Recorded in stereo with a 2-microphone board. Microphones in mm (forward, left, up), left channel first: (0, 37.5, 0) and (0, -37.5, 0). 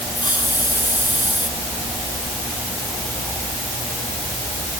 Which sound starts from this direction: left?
A hiss, at 0.1 s.